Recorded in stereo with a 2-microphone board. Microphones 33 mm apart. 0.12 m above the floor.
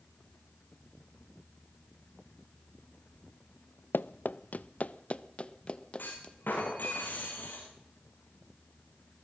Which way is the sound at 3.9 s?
80° left.